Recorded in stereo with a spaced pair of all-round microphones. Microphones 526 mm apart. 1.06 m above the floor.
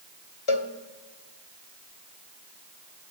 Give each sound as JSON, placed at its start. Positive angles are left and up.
{"t": 0.5, "sound": "a cowbell", "side_deg": 65, "distance_m": 1.6}